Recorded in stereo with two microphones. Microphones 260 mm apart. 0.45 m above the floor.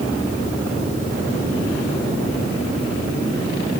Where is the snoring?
No snoring in this recording.